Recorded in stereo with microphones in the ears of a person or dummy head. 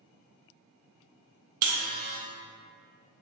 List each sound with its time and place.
1.6 s a buzzer: 50° right (ahead or behind), 0.7 m